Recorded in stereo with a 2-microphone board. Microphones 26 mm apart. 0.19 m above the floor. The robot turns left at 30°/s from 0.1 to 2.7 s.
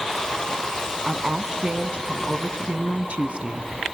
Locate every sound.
1.1 s a woman speaking: 20° right, 1.7 m; by 4.0 s 70° right, 1.7 m